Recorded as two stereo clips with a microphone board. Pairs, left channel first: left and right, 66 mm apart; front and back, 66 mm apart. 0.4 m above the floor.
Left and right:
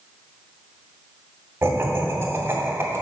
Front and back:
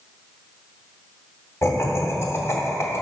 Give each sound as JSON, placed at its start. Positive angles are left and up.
{"t": 1.6, "sound": "laughter", "azimuth_deg": -40, "distance_m": 2.5}